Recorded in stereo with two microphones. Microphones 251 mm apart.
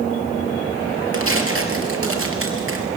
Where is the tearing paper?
60° right (ahead or behind), 2.5 m.